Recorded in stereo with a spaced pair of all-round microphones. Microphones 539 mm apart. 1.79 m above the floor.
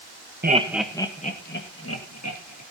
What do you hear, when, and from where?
0.4 s laughter: 20° right (ahead or behind), 1.1 m; by 2.6 s 30° left (ahead or behind), 3 m